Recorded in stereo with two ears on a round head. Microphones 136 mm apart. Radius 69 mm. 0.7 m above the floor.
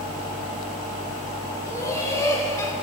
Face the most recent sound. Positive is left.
turn(degrees=20)  # may be behind; listen again after turning